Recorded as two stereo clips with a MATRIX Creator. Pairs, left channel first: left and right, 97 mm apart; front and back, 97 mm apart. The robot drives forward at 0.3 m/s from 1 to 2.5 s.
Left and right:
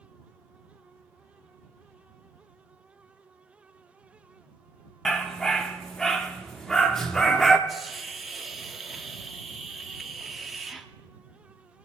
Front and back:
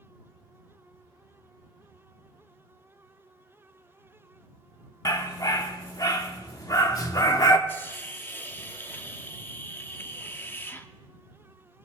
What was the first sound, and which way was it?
A dog barking, 5° left.